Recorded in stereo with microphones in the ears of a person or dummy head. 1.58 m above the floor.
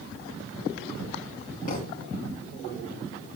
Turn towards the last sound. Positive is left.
turn(degrees=45)  # may be behind; listen again after turning